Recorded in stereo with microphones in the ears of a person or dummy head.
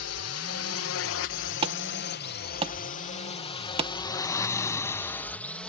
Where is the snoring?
15° left (ahead or behind).